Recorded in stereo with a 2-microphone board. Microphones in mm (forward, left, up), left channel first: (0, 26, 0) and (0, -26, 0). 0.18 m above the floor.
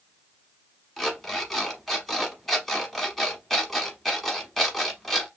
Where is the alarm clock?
5° left (ahead or behind), 1.0 m.